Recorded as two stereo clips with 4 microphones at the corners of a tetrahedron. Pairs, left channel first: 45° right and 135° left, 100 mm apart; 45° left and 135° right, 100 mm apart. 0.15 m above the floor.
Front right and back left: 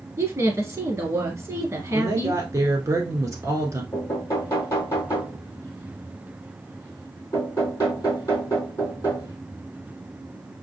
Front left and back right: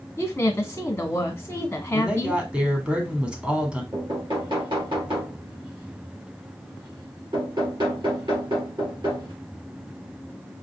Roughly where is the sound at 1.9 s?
Behind left.